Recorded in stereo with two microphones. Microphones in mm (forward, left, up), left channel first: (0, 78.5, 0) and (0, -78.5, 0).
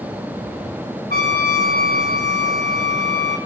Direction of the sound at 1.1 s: 70° left (ahead or behind).